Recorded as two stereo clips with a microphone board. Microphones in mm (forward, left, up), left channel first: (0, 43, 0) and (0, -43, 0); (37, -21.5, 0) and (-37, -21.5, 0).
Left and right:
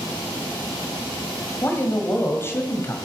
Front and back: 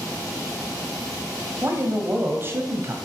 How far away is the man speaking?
About 2.0 m.